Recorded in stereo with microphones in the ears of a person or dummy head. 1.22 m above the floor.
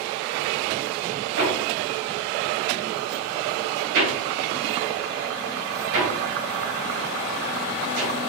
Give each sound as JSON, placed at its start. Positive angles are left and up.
{"t": 1.4, "sound": "hammering", "side_deg": -75, "distance_m": 3.0}